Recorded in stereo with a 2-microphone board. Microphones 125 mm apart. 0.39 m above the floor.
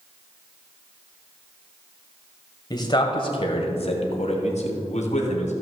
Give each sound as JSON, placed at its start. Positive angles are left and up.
{"t": 2.7, "sound": "a man speaking", "side_deg": 35, "distance_m": 1.6}